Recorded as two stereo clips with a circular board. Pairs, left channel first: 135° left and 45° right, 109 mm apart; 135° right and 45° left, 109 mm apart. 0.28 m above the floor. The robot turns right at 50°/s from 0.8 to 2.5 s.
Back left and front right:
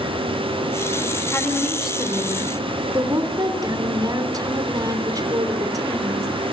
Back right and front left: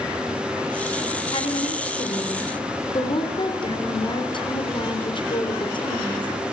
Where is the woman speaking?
160° right, 4 m; by 6.3 s 100° right, 4 m.